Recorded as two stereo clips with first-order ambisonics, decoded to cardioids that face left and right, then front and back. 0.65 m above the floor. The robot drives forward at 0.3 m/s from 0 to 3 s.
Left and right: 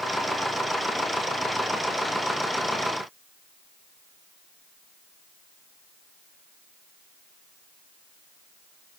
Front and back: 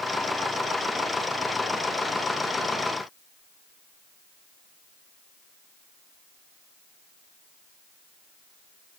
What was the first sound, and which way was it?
Only background noise.